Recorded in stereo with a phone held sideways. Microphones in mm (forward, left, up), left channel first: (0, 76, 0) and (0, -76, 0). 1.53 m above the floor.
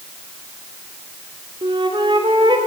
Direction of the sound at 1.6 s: 35° right (ahead or behind).